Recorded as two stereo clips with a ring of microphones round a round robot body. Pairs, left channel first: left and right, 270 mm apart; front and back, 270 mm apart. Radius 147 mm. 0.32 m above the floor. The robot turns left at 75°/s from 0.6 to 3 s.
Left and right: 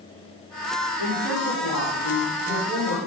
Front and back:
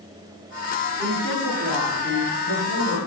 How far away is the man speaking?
About 5 m.